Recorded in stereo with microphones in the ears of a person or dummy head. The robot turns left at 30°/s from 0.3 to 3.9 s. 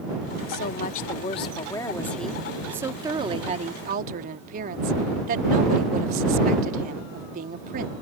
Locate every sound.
0.5 s a woman speaking: 55° left; by 7.9 s 45° right